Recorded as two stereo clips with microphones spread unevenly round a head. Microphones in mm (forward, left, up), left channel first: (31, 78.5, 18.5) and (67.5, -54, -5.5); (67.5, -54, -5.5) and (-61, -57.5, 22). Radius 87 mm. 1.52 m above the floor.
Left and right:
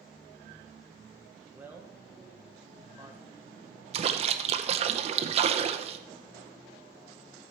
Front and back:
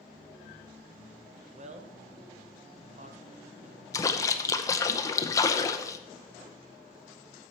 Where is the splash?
65° right, 0.6 m.